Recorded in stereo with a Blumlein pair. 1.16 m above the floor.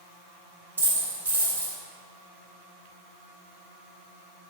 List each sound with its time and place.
0.8 s a dropped coin: 70° right, 1.8 m